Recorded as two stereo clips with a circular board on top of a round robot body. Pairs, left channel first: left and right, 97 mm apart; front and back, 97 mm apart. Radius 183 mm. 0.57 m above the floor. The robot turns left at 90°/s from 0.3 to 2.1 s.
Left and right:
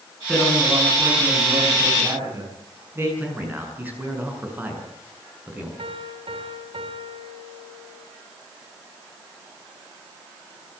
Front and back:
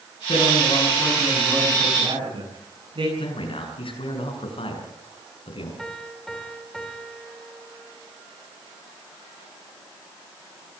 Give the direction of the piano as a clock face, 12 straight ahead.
3 o'clock.